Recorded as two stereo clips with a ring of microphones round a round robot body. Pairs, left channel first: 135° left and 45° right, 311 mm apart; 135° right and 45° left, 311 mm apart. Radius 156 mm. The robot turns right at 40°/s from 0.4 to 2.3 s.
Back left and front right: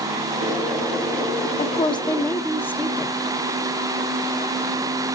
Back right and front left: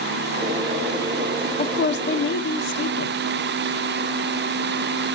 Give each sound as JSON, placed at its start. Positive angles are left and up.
{"t": 1.6, "sound": "a woman speaking", "azimuth_deg": -175, "distance_m": 1.0}